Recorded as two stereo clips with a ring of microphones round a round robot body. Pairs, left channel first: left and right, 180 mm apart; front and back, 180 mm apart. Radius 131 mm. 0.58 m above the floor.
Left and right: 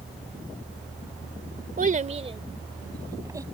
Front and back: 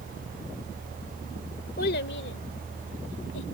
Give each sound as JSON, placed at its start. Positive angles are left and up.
{"t": 1.8, "sound": "a child speaking", "azimuth_deg": -50}